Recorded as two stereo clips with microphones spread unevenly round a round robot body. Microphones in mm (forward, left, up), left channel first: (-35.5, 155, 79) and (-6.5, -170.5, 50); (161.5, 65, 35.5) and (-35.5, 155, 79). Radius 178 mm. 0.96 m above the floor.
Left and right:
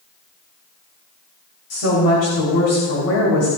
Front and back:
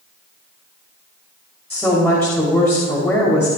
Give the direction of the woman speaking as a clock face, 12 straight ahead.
10 o'clock.